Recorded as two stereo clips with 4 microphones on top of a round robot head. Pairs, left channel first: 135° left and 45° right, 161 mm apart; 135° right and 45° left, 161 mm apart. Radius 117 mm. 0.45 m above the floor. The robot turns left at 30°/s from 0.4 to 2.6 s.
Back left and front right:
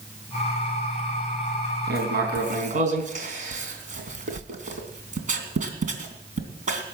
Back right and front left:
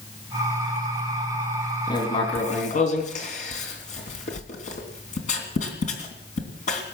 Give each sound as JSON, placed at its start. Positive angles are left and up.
{"t": 1.9, "sound": "writing", "azimuth_deg": -65, "distance_m": 3.0}